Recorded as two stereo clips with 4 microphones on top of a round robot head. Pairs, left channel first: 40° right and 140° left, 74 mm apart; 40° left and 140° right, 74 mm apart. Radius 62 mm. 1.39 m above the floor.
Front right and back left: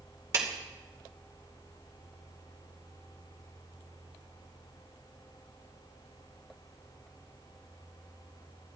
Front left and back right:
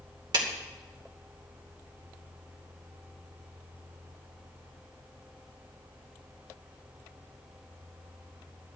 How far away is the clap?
About 2.5 m.